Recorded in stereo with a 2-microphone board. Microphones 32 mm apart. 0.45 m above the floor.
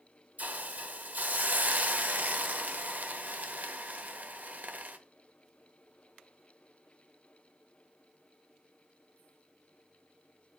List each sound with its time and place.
0.4 s a hiss: 60° right (ahead or behind), 0.8 m